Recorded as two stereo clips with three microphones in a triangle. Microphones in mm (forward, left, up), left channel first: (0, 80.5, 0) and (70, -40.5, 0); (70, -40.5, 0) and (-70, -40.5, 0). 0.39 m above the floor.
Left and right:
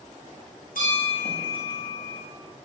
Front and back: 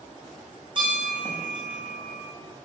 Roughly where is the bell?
Behind left.